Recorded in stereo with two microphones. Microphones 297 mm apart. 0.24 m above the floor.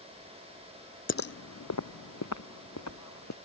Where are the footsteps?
45° left (ahead or behind); by 3.4 s 65° left (ahead or behind).